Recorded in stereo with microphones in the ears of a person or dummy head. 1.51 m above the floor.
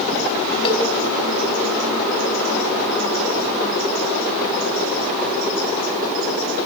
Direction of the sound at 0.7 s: 30° left (ahead or behind).